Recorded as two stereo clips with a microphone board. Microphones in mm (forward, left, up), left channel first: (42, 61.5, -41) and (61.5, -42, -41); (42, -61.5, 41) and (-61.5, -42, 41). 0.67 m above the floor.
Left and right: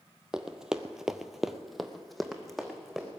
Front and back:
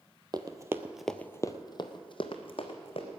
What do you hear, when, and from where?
0.3 s running footsteps: 160° right, 1.0 m; by 3.1 s 15° left, 2 m